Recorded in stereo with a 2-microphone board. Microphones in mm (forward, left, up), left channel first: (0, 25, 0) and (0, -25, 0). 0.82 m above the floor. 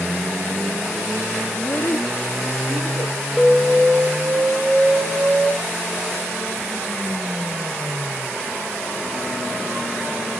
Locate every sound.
1.5 s a child speaking: 50° left (ahead or behind), 0.7 m; by 3.2 s 70° left (ahead or behind), 1.7 m
3.4 s an alarm: centre (ahead or behind), 4 m